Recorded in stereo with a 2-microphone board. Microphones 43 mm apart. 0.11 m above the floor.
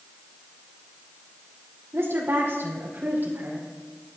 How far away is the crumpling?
I don't hear crumpling.